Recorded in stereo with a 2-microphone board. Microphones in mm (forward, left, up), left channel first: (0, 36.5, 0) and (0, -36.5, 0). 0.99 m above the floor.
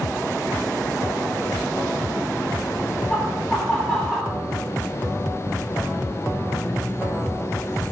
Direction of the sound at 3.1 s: 5° left (ahead or behind).